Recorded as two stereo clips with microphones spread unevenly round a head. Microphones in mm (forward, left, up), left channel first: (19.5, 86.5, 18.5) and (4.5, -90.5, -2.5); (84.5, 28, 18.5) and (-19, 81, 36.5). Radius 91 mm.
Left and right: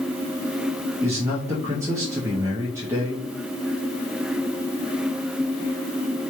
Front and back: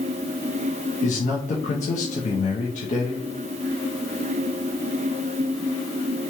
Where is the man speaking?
20° right, 0.8 m.